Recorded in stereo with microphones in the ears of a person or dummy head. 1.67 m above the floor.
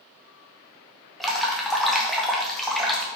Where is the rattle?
I don't hear a rattle.